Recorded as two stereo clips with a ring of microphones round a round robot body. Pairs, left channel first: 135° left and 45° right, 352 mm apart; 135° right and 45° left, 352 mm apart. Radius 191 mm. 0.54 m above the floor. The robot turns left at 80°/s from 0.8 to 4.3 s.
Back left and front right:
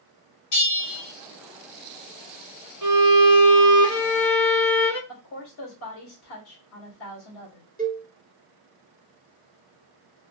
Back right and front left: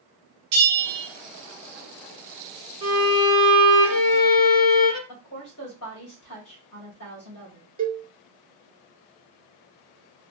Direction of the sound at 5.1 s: 175° right.